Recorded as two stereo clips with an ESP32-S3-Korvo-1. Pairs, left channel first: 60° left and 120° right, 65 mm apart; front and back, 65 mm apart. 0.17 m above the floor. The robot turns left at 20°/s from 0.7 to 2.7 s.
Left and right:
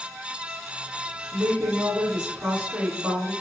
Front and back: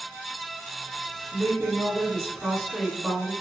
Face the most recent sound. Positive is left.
turn(degrees=-70)